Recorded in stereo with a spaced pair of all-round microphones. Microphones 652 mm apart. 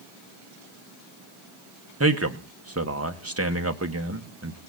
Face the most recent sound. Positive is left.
turn(degrees=-20)  # may be behind; listen again after turning